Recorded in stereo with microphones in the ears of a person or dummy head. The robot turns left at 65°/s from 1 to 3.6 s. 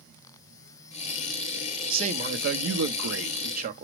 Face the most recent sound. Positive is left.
turn(degrees=-140)